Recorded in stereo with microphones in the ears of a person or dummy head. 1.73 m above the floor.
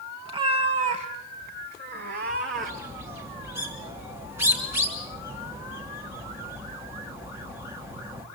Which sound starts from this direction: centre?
A bird, at 2.5 s.